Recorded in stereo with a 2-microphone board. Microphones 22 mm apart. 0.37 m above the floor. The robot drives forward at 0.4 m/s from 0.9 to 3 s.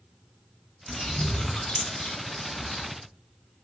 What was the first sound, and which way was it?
A bird, 65° left (ahead or behind).